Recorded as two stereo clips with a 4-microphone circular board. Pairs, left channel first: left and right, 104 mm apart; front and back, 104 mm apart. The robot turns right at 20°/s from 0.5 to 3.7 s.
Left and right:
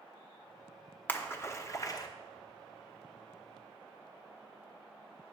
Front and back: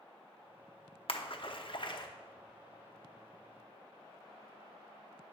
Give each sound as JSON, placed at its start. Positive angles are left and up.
{"t": 1.1, "sound": "a splash", "azimuth_deg": 20, "distance_m": 0.8}